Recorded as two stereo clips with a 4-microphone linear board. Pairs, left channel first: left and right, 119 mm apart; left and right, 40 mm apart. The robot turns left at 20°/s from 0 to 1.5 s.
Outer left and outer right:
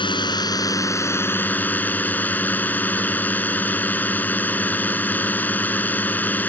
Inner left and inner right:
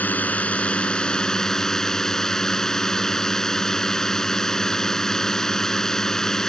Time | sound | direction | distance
0.0 | a drone | 45° left | ?